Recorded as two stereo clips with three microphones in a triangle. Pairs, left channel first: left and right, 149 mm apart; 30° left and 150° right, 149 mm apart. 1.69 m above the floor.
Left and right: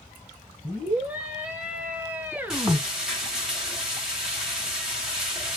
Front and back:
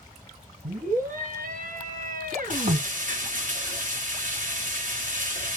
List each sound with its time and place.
0.6 s a scream: 170° right, 1.9 m
2.5 s frying: 175° right, 1.4 m